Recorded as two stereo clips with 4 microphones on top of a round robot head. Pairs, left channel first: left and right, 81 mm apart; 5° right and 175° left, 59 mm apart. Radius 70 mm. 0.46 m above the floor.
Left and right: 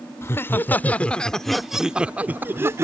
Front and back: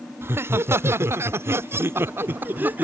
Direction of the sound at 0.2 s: 140° left.